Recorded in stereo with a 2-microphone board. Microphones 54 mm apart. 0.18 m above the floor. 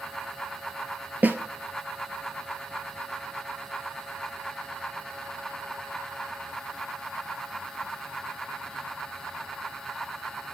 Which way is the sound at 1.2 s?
35° right (ahead or behind).